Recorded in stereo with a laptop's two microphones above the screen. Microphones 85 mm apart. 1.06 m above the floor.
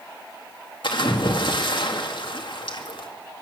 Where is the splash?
65° left (ahead or behind), 2 m.